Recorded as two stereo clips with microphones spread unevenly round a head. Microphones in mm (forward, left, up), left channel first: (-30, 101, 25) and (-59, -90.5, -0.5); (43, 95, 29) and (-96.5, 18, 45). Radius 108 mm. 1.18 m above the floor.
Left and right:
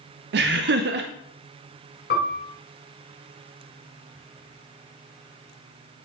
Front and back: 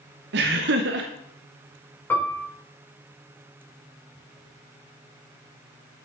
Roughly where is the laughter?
Behind right.